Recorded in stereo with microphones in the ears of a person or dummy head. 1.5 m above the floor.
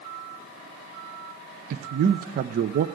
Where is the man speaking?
50° right (ahead or behind), 0.6 m.